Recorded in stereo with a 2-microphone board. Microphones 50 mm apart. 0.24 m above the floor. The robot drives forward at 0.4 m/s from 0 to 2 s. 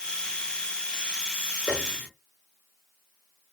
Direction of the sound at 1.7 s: 10° right (ahead or behind).